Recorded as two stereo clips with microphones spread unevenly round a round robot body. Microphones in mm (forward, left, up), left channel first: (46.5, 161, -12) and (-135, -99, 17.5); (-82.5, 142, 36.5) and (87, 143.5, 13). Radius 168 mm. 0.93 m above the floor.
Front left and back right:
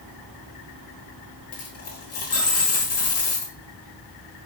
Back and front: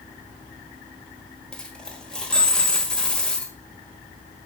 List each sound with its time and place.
1.5 s a dropped coin: 100° left, 1.1 m